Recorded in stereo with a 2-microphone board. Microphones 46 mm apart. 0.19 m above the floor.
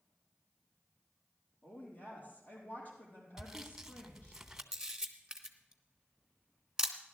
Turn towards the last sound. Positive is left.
turn(degrees=-15)  # may be behind; listen again after turning